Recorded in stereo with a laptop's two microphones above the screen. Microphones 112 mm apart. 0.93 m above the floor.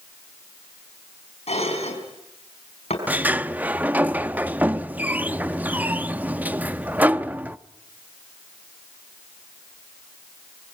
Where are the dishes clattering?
75° left (ahead or behind), 5.5 m.